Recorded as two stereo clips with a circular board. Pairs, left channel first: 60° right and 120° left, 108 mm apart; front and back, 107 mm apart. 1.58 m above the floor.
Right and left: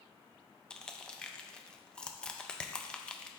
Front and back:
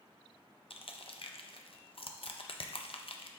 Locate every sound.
0.7 s crushing: 20° left, 0.5 m